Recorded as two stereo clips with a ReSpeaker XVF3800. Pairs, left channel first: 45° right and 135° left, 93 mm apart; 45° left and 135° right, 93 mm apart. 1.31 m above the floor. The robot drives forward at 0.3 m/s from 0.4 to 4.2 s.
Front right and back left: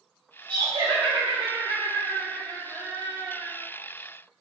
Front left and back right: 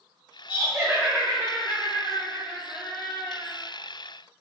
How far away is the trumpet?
I don't hear a trumpet.